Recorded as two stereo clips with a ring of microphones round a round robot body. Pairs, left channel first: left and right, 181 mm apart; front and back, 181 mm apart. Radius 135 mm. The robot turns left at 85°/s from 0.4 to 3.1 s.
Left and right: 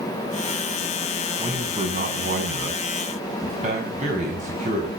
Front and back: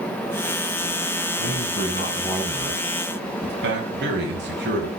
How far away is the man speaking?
About 6.5 m.